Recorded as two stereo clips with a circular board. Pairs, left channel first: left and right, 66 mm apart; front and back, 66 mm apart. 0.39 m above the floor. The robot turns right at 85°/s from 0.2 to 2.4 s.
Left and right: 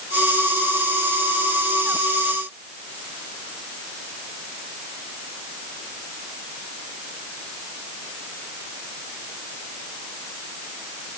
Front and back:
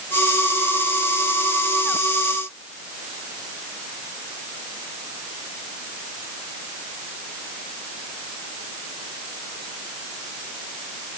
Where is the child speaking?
I don't hear a child speaking.